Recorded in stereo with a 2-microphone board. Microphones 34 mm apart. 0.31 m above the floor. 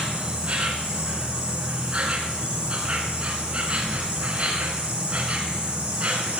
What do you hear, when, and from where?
0.0 s an insect: 30° right (ahead or behind), 2.5 m